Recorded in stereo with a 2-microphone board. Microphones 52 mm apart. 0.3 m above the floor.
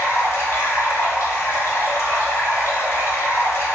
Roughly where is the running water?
Left.